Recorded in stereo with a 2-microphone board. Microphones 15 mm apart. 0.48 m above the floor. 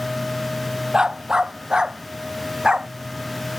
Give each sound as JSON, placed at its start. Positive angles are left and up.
{"t": 0.9, "sound": "a dog barking", "side_deg": -50}